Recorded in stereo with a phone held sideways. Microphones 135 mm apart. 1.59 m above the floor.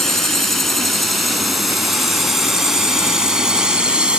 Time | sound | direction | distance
0.0 | a drone | centre (ahead or behind) | ?